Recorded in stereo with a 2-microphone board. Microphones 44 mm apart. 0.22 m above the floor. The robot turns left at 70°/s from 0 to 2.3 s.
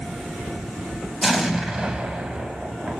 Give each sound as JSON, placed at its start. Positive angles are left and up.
{"t": 1.2, "sound": "an explosion", "side_deg": 0, "distance_m": 0.6}